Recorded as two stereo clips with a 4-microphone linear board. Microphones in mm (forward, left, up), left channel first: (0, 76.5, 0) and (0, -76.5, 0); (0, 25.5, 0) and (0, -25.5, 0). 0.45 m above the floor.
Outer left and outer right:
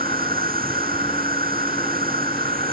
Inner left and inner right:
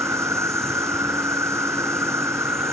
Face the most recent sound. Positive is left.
turn(degrees=-70)  # may be behind; listen again after turning